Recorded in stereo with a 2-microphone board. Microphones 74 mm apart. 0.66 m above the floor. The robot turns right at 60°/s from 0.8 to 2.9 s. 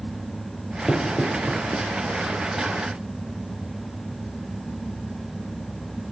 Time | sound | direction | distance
0.9 | knocking | 15° left (ahead or behind) | 1.8 m